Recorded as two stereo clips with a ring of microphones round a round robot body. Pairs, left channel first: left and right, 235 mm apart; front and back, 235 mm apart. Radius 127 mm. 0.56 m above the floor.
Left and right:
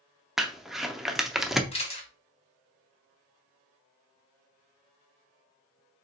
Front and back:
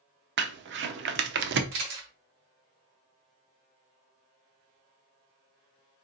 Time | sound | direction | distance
0.4 | crumpling | straight behind | 0.6 m
1.7 | a camera shutter | 155° left | 2.5 m